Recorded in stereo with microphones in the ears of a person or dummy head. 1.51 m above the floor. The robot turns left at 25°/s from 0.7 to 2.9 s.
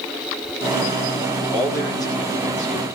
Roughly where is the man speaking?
Behind.